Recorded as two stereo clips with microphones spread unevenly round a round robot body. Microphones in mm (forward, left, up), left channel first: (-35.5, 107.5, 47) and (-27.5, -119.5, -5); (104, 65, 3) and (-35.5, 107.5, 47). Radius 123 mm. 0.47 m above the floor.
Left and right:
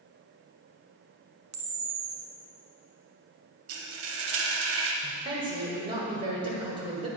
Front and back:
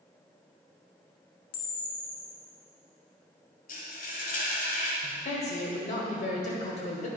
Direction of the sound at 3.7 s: 60° right.